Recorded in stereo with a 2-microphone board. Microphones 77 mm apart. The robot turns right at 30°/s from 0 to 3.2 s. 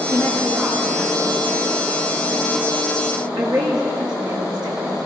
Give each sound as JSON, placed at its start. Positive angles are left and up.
{"t": 0.1, "sound": "a woman speaking", "side_deg": 30, "distance_m": 7.5}